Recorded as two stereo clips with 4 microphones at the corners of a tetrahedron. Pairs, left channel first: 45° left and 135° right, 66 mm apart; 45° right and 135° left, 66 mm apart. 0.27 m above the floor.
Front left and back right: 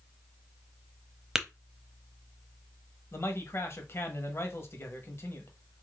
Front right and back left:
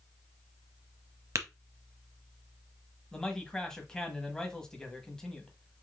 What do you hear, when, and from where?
1.4 s tapping: 145° left, 0.8 m
3.1 s a man speaking: 25° left, 1.2 m